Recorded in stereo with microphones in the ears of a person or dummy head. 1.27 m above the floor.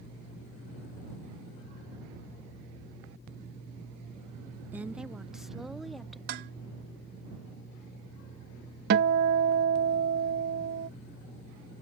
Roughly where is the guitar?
Right.